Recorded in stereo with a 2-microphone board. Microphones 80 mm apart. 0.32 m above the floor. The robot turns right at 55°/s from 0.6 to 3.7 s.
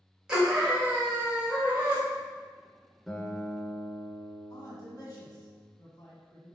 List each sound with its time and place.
0.3 s a scream: 10° right (ahead or behind), 1.3 m; by 2.0 s 20° right (ahead or behind), 1.3 m
3.1 s a guitar: straight ahead, 1.1 m; by 5.5 s 35° left, 1.1 m
4.5 s a man speaking: 50° left (ahead or behind), 1.8 m